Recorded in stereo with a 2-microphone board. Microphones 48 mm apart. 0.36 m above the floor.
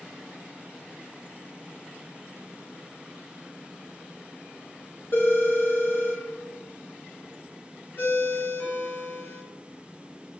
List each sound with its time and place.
5.1 s a phone ringing: 55° left (ahead or behind), 0.8 m
8.0 s a ringtone: 50° left (ahead or behind), 0.8 m